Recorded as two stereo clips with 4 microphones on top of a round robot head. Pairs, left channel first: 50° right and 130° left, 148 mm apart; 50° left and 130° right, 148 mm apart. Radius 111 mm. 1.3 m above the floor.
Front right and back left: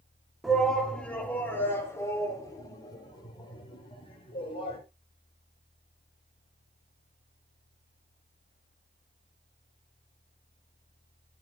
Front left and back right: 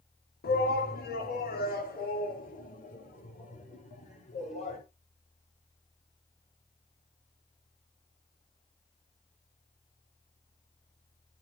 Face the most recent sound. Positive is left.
turn(degrees=5)